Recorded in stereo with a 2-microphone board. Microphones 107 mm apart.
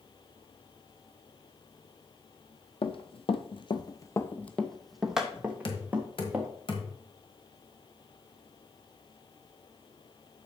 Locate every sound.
2.8 s running footsteps: 55° left (ahead or behind), 0.9 m; by 6.5 s 20° right (ahead or behind), 1.9 m
5.7 s knocking: 55° left (ahead or behind), 1.5 m